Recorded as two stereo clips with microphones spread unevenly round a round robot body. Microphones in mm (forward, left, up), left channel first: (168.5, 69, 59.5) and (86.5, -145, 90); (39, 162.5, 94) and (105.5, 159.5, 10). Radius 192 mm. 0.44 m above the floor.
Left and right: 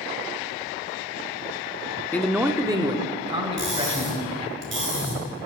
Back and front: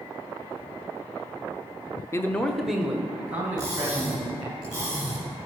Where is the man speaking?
10° left, 0.8 m; by 4.6 s 45° right, 3.5 m.